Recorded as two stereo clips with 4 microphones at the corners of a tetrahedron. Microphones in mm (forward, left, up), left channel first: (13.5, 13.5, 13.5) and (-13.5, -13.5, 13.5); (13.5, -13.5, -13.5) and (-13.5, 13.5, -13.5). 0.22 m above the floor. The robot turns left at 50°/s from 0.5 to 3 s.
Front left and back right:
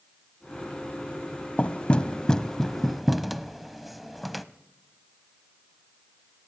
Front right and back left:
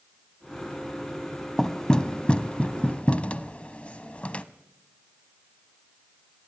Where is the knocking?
25° left, 0.8 m; by 4.5 s 45° right, 0.8 m.